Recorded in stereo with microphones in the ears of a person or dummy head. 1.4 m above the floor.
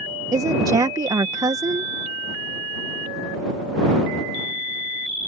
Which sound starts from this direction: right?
A woman speaking, at 0.3 s.